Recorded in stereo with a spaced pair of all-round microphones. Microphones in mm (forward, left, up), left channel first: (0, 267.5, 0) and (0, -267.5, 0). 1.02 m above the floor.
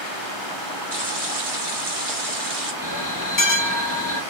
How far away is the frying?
About 0.9 m.